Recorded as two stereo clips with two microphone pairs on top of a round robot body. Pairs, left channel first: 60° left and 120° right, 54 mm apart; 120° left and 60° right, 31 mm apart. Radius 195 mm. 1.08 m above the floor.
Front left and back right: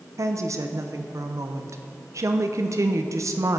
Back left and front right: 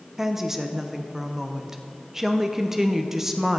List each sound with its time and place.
0.2 s a woman speaking: 135° right, 0.8 m